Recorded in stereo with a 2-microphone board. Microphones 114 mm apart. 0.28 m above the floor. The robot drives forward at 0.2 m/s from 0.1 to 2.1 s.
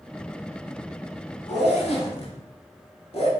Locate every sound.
1.5 s a zipper: 70° left (ahead or behind), 0.6 m; by 3.3 s 60° left (ahead or behind), 0.6 m